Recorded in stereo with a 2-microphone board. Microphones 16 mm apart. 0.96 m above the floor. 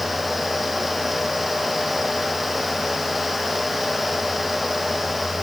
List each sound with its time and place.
Only background noise.